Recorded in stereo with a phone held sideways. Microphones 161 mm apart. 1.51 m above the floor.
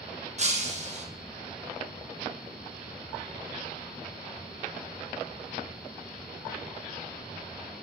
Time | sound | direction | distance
0.4 | breaking glass | 45° right (ahead or behind) | 1.0 m